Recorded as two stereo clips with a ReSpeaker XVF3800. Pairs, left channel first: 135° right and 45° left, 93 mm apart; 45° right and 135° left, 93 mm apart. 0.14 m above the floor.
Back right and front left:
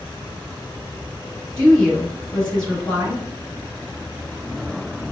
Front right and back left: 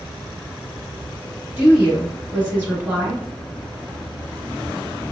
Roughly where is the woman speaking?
Behind.